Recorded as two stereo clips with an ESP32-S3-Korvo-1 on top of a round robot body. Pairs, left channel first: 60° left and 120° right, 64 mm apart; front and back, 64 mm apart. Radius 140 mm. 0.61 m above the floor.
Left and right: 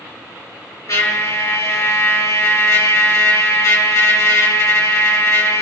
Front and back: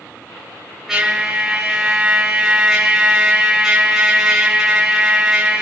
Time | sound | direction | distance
0.9 | a trumpet | 100° left | 8.5 m